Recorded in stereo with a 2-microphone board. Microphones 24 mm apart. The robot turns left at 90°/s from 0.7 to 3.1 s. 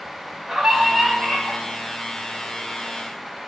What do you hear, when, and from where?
0.5 s a scream: 165° right, 4 m; by 1.6 s 110° left, 4 m